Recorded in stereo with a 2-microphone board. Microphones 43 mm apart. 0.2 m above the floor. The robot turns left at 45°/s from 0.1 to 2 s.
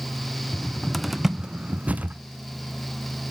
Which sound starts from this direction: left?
A cupboard door, at 0.5 s.